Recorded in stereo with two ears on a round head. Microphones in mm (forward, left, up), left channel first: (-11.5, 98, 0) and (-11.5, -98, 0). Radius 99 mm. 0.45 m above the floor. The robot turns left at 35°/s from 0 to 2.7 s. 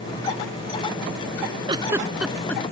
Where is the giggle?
25° right (ahead or behind); by 2.6 s 10° left (ahead or behind).